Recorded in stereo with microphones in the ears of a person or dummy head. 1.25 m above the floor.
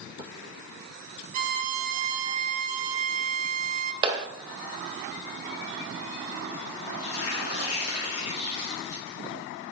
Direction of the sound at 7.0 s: 75° left (ahead or behind).